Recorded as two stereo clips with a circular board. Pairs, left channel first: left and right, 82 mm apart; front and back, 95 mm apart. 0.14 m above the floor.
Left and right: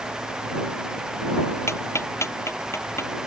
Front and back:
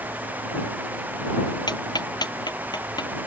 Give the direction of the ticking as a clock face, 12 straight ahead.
11 o'clock.